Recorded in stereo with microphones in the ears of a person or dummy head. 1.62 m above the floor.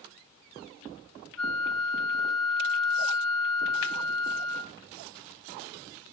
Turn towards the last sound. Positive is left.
turn(degrees=0)  # may be behind; listen again after turning